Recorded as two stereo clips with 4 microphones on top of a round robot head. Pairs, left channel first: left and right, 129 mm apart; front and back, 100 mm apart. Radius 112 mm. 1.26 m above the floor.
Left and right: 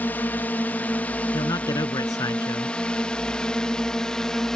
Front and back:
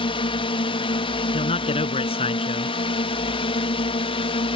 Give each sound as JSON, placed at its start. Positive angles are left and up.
{"t": 0.0, "sound": "a drone", "azimuth_deg": 10}
{"t": 1.3, "sound": "a man speaking", "azimuth_deg": 20}